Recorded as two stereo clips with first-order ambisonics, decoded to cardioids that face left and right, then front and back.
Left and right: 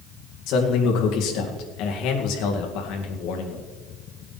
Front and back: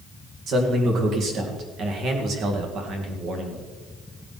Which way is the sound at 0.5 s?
125° left.